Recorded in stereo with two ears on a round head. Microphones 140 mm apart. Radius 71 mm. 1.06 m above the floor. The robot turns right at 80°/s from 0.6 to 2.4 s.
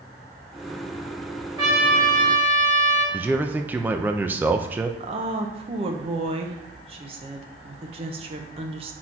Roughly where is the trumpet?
Ahead right.